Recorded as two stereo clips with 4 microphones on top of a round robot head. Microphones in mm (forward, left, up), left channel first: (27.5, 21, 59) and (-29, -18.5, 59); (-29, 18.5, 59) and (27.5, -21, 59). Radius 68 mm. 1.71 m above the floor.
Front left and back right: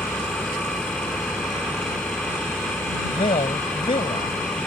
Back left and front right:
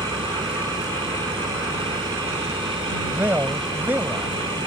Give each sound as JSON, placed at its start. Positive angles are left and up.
{"t": 0.0, "sound": "an engine running", "azimuth_deg": -45}
{"t": 3.1, "sound": "a man speaking", "azimuth_deg": 30}